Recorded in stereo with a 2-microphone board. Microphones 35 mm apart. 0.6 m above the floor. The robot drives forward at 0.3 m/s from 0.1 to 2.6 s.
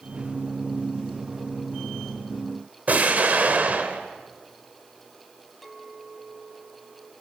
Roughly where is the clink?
Centre.